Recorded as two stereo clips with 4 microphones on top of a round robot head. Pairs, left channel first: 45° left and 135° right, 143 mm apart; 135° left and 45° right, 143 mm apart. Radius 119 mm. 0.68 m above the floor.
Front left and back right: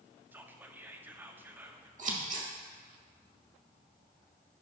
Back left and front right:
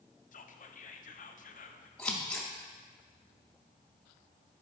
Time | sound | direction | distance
0.3 | whispering | 150° left | 1.0 m
2.0 | scissors | 145° right | 2 m